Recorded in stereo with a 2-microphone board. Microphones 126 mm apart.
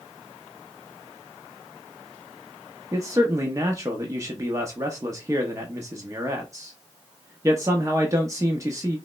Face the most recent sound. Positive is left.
turn(degrees=-25)  # may be behind; listen again after turning